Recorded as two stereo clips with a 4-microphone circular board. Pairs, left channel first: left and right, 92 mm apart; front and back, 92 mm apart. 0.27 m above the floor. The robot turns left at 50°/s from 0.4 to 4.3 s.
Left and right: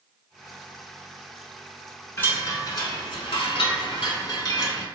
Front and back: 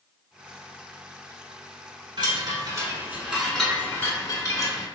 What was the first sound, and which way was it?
A chime, 160° left.